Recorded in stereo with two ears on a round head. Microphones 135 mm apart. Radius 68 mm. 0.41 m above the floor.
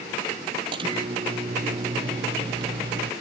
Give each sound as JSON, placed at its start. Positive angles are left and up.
{"t": 0.7, "sound": "a microwave", "side_deg": -35}